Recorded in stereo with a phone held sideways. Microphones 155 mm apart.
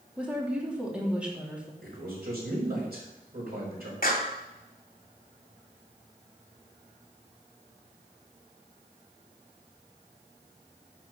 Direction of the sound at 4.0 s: 60° left (ahead or behind).